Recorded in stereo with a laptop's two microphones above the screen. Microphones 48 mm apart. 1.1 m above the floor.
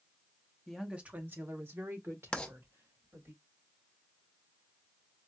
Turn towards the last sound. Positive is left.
turn(degrees=20)  # may be behind; listen again after turning